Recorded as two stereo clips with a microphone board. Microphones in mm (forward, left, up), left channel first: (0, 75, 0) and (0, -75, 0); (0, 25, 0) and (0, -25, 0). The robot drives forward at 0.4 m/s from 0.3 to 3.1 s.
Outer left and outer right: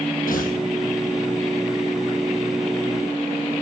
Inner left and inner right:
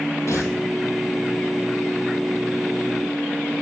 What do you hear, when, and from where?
0.3 s tearing paper: 70° left (ahead or behind), 1.9 m